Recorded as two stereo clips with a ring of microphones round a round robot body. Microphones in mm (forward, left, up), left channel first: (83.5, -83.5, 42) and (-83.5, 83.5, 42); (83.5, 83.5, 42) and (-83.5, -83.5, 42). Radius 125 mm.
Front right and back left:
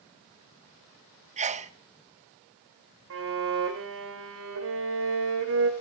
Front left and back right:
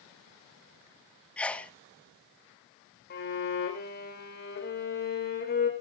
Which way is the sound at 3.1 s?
95° left.